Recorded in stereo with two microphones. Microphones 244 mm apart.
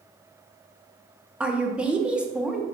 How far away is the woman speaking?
About 0.6 m.